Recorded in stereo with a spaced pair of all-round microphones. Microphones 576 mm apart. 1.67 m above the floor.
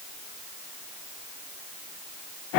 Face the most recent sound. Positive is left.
No sound to turn to.